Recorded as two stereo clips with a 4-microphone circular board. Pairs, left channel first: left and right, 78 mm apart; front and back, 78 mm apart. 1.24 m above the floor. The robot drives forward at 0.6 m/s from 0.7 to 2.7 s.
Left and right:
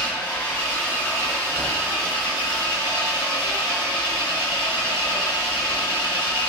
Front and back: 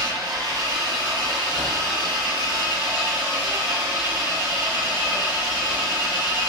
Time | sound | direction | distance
0.0 | an engine running | 155° left | 2.5 m